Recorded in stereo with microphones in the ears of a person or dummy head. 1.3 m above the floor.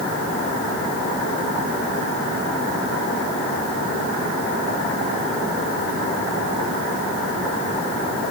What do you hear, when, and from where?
Only background noise.